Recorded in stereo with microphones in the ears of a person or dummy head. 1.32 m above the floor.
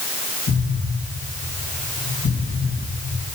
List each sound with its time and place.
0.5 s an explosion: 70° left (ahead or behind), 2.5 m